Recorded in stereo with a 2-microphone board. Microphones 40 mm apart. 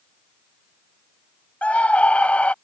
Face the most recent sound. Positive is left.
turn(degrees=35)  # may be behind; listen again after turning